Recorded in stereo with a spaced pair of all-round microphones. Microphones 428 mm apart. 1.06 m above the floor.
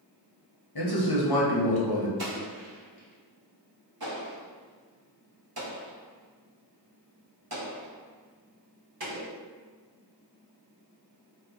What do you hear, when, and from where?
0.8 s a man speaking: 60° left (ahead or behind), 0.8 m
2.2 s an explosion: 60° right (ahead or behind), 0.9 m